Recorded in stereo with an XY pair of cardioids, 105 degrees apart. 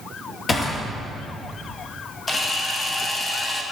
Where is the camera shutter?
35° left, 1.5 m.